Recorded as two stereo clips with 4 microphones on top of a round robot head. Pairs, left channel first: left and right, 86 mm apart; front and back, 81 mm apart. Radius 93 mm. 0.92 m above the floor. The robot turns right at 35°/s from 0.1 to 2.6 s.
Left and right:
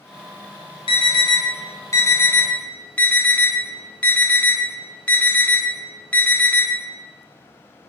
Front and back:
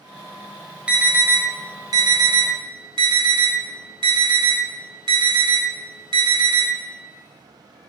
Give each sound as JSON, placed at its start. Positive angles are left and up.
{"t": 0.9, "sound": "an alarm", "azimuth_deg": 105, "distance_m": 3.5}